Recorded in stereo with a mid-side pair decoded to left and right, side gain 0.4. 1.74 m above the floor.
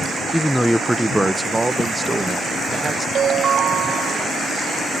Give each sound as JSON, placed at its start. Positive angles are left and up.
{"t": 0.3, "sound": "a man speaking", "azimuth_deg": 10}
{"t": 3.1, "sound": "a ringtone", "azimuth_deg": -65}